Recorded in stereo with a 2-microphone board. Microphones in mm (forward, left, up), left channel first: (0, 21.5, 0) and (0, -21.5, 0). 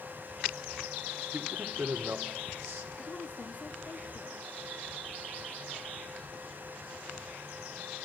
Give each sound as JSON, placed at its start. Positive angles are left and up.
{"t": 1.3, "sound": "a man speaking", "side_deg": -70, "distance_m": 1.9}
{"t": 3.0, "sound": "a woman speaking", "side_deg": 45, "distance_m": 1.9}